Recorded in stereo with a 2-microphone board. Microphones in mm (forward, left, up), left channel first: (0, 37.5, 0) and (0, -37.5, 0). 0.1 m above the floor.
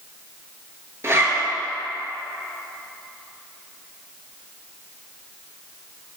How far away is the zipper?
About 0.6 m.